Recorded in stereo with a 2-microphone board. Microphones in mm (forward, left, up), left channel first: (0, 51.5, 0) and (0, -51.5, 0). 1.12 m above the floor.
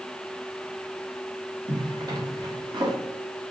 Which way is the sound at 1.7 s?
40° right (ahead or behind).